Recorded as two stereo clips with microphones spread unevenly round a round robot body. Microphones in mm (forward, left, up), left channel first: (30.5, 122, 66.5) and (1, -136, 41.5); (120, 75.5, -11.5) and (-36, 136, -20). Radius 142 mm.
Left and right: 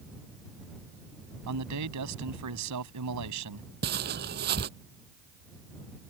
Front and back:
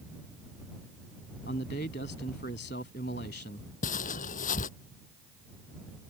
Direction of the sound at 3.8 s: 45° right.